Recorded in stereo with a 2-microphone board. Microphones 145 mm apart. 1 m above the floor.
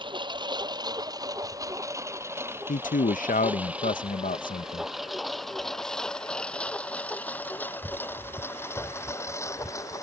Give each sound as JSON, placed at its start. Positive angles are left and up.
{"t": 0.0, "sound": "a lawn mower", "side_deg": -35}
{"t": 2.7, "sound": "a man speaking", "side_deg": 65}